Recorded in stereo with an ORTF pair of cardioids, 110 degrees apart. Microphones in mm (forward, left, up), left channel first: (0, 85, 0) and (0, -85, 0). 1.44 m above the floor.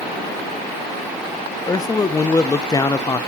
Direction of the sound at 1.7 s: 20° left.